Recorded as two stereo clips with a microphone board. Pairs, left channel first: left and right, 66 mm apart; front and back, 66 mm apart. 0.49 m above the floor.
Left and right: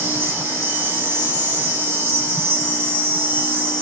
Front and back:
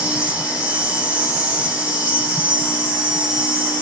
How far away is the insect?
About 2.5 m.